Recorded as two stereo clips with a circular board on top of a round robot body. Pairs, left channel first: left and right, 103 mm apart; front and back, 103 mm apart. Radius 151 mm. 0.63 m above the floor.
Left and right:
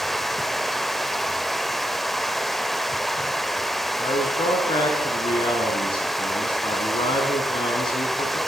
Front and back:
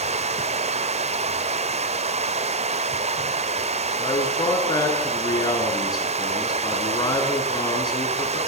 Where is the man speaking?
50° left, 9.5 m.